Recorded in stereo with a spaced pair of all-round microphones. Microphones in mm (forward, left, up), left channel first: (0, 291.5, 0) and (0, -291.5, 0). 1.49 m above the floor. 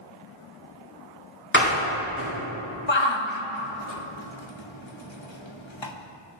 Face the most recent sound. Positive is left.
turn(degrees=50)  # may be behind; listen again after turning